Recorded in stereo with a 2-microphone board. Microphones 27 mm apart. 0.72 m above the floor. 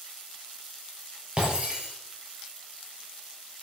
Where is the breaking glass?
35° right (ahead or behind), 6 m.